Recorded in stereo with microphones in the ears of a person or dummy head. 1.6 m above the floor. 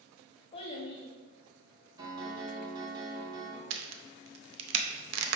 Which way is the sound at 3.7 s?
65° right (ahead or behind).